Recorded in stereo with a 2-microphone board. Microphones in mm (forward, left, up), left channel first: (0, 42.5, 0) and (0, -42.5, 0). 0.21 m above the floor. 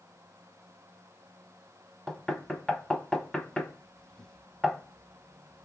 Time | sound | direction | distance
2.1 | knocking | 10° left (ahead or behind) | 0.7 m